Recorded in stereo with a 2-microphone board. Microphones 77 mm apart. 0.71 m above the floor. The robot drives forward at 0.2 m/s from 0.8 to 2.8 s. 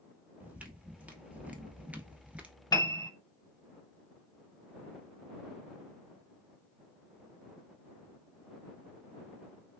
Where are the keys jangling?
No keys jangling in this recording.